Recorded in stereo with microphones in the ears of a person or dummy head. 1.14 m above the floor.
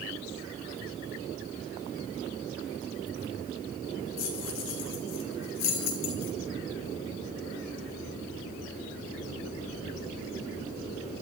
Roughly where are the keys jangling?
Left.